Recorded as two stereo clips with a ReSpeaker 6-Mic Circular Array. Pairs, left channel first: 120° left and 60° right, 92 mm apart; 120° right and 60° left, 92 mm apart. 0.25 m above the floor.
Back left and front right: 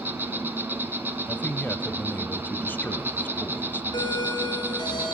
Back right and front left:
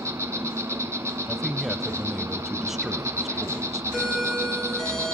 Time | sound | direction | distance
0.0 | an insect | 5° left | 1.8 m
1.3 | a man speaking | 145° left | 1.0 m
3.9 | a doorbell | 150° left | 4.5 m